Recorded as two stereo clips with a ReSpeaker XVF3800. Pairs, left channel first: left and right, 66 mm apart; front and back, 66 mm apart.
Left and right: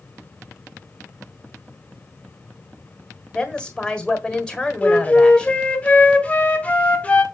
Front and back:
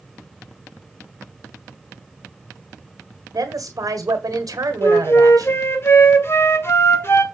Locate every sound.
3.3 s a woman speaking: 170° left, 1.6 m
4.8 s a flute: 30° left, 1.5 m